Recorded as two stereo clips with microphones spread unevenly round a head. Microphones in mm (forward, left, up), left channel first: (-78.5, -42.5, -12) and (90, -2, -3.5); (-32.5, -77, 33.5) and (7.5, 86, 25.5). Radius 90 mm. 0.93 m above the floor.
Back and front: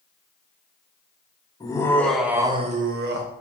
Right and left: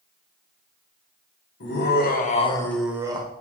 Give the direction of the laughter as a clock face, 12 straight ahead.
3 o'clock.